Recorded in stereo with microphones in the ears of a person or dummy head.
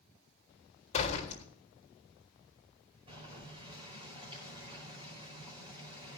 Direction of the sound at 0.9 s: 35° left (ahead or behind).